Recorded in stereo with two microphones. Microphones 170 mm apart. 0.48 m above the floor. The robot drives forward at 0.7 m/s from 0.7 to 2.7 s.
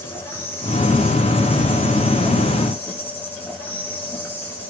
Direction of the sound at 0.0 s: 15° left (ahead or behind).